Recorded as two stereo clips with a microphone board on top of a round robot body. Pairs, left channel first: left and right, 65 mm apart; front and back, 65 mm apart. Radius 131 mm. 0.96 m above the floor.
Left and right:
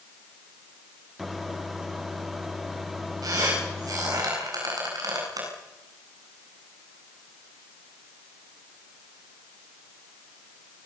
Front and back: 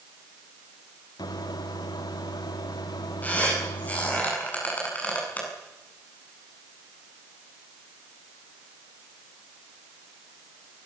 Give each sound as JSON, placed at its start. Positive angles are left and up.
{"t": 1.2, "sound": "a microwave", "azimuth_deg": -5, "distance_m": 1.7}
{"t": 3.2, "sound": "a squeak", "azimuth_deg": -65, "distance_m": 9.0}